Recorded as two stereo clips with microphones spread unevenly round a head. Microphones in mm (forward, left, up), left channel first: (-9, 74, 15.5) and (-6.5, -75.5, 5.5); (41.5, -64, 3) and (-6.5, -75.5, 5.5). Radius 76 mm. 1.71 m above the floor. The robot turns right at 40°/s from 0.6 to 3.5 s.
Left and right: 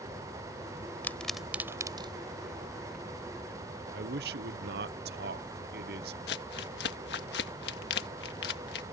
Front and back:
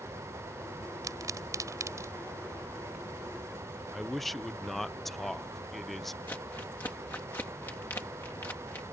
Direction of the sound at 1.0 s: 170° left.